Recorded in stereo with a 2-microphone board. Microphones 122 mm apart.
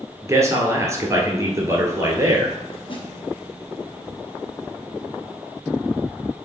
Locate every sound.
0.2 s a man speaking: 25° right (ahead or behind), 1.9 m
2.9 s a snare drum: 45° left (ahead or behind), 1.6 m